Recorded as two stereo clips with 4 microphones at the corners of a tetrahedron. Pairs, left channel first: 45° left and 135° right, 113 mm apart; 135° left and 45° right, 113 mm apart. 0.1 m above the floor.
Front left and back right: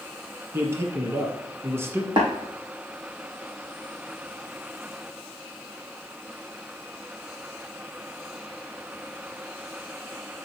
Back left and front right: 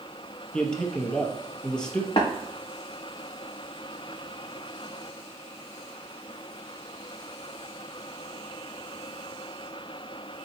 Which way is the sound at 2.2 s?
Straight behind.